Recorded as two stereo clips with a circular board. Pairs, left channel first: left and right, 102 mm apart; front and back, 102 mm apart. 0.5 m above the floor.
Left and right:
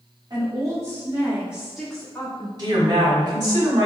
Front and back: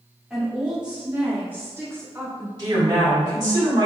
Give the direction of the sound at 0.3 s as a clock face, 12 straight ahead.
3 o'clock.